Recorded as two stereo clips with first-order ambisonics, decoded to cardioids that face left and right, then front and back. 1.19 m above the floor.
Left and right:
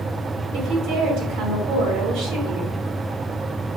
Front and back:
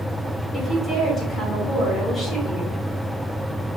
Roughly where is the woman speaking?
Right.